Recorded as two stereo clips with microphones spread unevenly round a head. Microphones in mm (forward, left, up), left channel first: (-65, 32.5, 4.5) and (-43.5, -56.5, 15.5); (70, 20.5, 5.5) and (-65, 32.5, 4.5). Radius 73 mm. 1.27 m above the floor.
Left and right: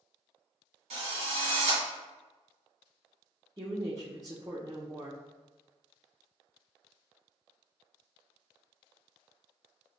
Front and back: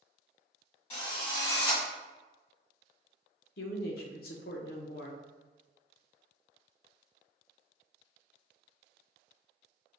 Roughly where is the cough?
I don't hear a cough.